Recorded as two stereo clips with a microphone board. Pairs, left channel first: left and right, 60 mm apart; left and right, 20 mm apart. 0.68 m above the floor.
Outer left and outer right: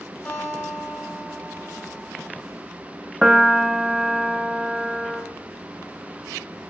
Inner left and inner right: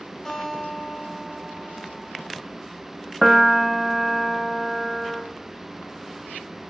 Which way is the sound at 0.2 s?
25° left (ahead or behind).